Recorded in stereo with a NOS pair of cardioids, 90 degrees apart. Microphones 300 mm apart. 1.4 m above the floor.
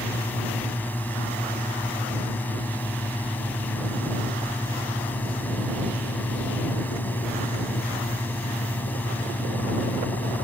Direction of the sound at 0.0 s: 5° left.